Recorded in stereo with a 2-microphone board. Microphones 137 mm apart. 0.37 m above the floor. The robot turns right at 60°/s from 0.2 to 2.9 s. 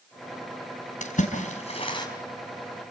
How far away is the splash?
About 3.5 m.